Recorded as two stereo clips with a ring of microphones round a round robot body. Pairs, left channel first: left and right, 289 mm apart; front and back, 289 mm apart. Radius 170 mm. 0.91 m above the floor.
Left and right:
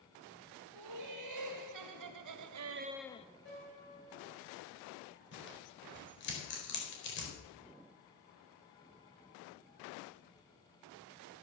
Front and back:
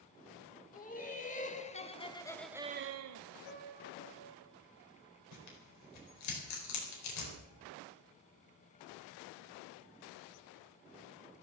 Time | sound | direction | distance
0.7 | laughter | 60° right | 3 m
3.5 | a piano | 30° left | 4.5 m
5.3 | tearing paper | 35° left | 4 m